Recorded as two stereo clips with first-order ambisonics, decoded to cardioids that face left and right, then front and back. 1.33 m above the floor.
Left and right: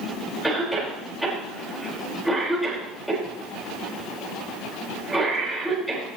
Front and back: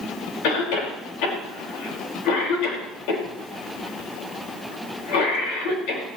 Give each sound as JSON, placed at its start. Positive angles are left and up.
{"t": 0.4, "sound": "a cough", "azimuth_deg": 0, "distance_m": 5.0}